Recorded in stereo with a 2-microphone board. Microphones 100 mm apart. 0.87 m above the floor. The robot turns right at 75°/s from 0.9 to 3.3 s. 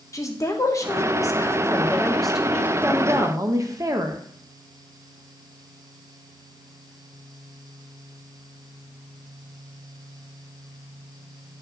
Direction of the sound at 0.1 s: 75° left.